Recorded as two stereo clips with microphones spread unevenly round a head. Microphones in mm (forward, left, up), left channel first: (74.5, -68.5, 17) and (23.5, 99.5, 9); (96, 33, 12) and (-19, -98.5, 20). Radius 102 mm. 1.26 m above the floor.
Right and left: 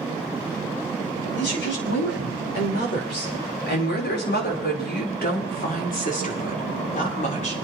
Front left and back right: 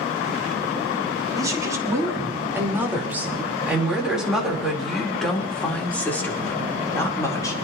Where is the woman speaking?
60° right, 6 m; by 7.5 s 20° right, 5 m.